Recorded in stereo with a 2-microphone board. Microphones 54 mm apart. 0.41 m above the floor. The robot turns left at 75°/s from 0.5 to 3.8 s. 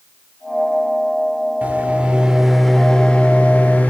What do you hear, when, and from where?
1.6 s a microwave: 30° right (ahead or behind), 0.7 m; by 3.9 s 30° left (ahead or behind), 0.7 m